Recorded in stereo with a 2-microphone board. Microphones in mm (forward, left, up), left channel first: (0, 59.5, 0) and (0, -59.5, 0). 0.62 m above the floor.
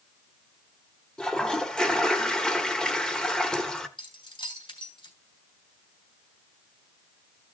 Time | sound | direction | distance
1.2 | a toilet flushing | 5° left (ahead or behind) | 1.1 m
4.0 | keys jangling | 45° left (ahead or behind) | 3 m